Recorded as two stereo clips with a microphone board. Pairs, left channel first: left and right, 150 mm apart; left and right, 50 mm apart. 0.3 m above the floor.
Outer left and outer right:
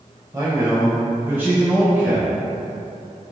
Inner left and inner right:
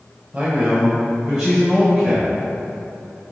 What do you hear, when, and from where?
0.3 s a man speaking: 25° right (ahead or behind), 1.0 m; by 2.3 s 10° right (ahead or behind), 1.5 m